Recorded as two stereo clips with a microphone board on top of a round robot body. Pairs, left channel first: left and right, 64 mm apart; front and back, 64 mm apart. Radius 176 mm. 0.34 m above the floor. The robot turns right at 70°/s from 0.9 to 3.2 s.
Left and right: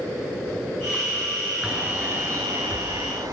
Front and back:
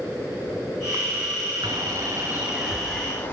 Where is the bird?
170° right, 9.5 m; by 3.3 s 60° right, 9.5 m.